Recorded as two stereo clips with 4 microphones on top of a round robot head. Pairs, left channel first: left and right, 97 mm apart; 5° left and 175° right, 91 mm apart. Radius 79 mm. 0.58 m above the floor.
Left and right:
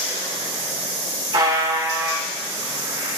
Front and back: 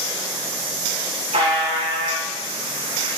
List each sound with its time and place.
1.3 s a buzzer: 145° right, 6 m